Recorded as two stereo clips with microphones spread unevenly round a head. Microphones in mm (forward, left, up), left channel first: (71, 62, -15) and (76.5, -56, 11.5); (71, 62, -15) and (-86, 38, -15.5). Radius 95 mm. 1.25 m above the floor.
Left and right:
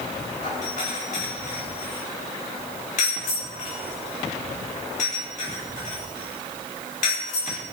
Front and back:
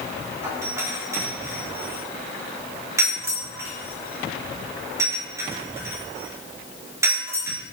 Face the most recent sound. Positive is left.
turn(degrees=115)